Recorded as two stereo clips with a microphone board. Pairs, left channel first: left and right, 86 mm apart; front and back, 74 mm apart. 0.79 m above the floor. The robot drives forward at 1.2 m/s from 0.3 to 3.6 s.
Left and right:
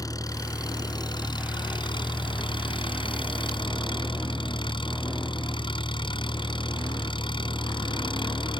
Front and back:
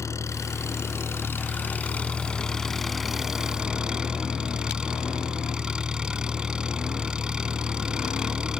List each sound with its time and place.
0.0 s an engine running: 45° left; by 8.6 s 100° left